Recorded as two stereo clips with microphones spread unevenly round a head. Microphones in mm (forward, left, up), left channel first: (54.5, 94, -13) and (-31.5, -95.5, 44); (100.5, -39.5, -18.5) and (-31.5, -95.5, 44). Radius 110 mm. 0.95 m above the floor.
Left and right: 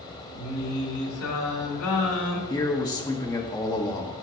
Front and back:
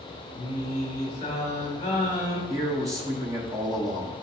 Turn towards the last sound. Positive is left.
turn(degrees=120)